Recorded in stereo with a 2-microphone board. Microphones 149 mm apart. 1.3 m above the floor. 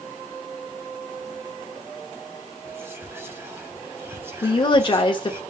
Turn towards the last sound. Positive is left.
turn(degrees=35)  # may be behind; listen again after turning